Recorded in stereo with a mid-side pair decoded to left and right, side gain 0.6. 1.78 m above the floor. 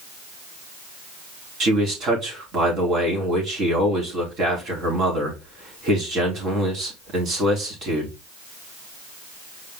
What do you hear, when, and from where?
1.6 s a man speaking: 45° right, 4 m